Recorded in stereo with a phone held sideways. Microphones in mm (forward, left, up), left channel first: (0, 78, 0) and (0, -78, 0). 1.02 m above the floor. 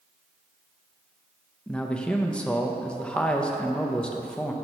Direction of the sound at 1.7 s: 5° left (ahead or behind).